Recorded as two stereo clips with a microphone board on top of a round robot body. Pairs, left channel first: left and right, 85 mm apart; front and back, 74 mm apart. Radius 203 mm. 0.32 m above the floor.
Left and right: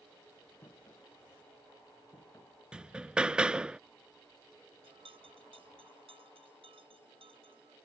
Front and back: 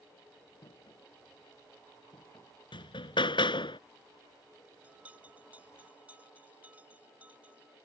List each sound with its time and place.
0.6 s footsteps: 35° left
2.7 s hammering: 10° right
4.8 s a bell: 110° right